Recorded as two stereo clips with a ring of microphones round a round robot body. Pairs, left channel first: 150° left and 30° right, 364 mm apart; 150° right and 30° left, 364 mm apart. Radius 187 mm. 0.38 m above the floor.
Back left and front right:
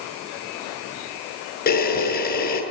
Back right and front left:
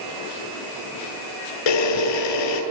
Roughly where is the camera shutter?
Behind right.